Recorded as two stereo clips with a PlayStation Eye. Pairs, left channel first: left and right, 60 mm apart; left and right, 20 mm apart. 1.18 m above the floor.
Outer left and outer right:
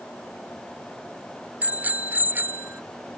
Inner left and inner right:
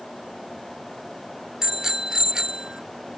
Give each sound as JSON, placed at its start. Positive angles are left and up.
{"t": 1.6, "sound": "a bicycle bell", "side_deg": -25}